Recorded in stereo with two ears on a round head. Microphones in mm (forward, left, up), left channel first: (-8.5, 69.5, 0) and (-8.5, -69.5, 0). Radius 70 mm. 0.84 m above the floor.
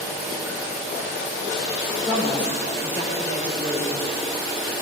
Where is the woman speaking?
30° left (ahead or behind), 3.5 m.